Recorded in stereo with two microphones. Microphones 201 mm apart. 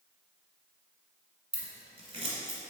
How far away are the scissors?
About 1.2 m.